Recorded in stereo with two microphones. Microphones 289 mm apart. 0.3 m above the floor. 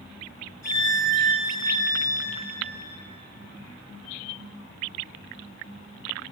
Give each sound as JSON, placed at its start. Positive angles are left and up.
{"t": 0.6, "sound": "a violin", "side_deg": 70, "distance_m": 3.0}